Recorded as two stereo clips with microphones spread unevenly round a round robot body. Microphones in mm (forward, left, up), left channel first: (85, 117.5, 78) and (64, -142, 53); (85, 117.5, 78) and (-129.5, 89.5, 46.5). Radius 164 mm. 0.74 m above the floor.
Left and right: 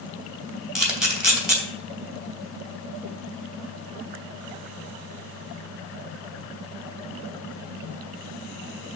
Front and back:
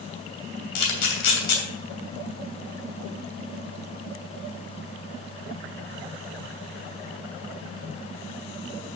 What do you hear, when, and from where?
0.8 s a camera shutter: 5° right, 2.5 m